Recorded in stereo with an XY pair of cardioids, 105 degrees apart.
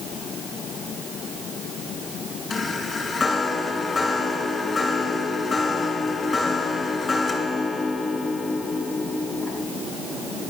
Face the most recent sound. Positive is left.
turn(degrees=30)